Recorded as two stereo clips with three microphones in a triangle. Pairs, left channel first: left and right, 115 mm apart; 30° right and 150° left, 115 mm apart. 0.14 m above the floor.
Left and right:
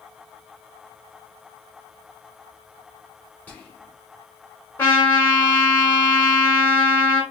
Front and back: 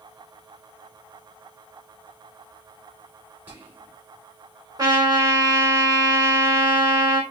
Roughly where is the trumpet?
Behind left.